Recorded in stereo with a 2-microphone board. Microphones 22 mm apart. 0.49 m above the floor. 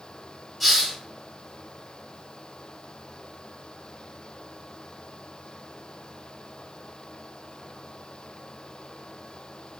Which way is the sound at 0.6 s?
Centre (ahead or behind).